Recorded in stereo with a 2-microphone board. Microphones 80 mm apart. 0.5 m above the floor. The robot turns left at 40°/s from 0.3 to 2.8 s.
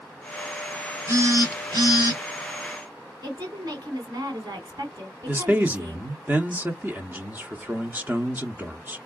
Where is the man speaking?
20° right (ahead or behind), 0.7 m.